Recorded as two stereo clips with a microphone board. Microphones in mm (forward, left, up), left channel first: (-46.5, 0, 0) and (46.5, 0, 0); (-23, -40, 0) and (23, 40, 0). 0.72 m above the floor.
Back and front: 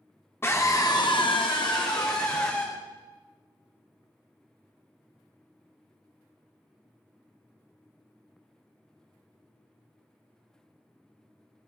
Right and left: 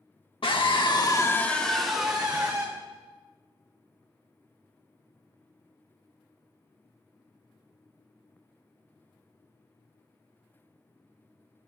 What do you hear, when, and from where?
0.4 s a scream: 120° right, 1.5 m; by 2.7 s 130° left, 2.5 m